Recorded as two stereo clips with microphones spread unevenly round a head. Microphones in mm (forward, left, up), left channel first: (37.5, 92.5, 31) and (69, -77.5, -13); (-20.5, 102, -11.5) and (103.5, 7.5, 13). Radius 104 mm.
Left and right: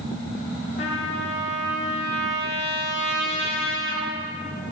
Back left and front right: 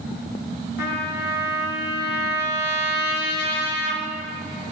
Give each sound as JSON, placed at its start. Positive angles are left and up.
{"t": 0.8, "sound": "a trumpet", "azimuth_deg": 145, "distance_m": 1.2}